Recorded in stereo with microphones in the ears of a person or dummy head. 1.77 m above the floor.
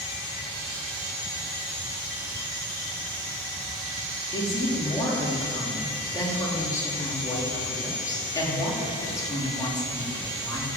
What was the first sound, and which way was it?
A woman speaking, 15° left (ahead or behind).